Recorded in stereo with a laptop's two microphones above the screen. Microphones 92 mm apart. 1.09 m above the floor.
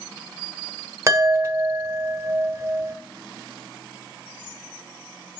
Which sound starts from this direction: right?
A chime, at 1.1 s.